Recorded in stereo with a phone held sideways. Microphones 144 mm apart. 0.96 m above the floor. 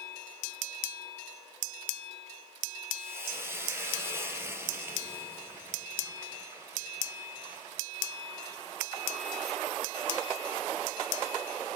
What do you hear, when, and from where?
3.0 s frying: 15° right (ahead or behind), 4.5 m